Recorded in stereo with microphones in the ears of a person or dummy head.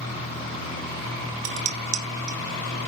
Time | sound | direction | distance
1.4 | dishes clattering | 40° right (ahead or behind) | 3.5 m